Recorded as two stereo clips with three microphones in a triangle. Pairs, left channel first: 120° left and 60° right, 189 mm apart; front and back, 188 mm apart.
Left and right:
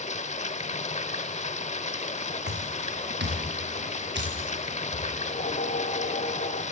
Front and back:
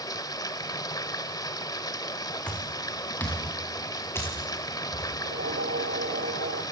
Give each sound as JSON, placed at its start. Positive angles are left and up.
{"t": 0.0, "sound": "running water", "azimuth_deg": 70, "distance_m": 1.1}
{"t": 2.5, "sound": "footsteps", "azimuth_deg": -85, "distance_m": 3.5}
{"t": 5.2, "sound": "a whoosh", "azimuth_deg": 165, "distance_m": 1.0}